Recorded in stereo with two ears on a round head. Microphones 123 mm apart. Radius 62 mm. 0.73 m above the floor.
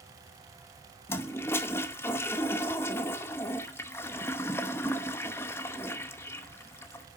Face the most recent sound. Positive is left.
turn(degrees=20)  # may be behind; listen again after turning